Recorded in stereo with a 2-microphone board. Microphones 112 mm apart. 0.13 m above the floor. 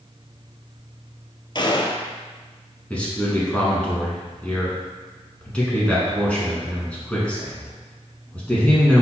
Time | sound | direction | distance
1.6 | a gunshot | 45° left (ahead or behind) | 0.6 m
2.9 | a man speaking | 10° left (ahead or behind) | 1.4 m